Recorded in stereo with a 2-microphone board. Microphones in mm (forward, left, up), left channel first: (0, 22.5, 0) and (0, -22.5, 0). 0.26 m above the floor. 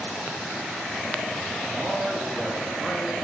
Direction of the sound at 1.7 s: 10° right (ahead or behind).